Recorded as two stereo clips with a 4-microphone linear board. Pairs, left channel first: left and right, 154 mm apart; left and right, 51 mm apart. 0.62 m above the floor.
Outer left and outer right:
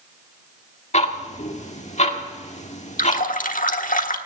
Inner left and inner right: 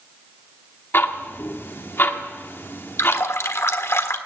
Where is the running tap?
65° left (ahead or behind), 1.2 m.